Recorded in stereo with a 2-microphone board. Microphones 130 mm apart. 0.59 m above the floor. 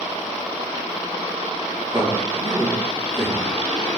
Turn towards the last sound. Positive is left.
turn(degrees=-35)  # may be behind; listen again after turning